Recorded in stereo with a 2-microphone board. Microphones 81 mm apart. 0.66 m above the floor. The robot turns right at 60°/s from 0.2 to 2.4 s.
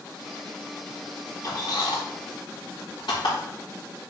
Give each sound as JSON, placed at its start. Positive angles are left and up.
{"t": 1.4, "sound": "a squeak", "side_deg": 50, "distance_m": 5.0}